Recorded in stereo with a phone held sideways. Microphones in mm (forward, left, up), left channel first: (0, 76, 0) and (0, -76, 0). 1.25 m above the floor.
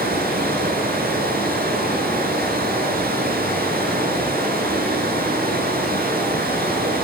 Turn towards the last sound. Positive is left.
turn(degrees=-75)  # may be behind; listen again after turning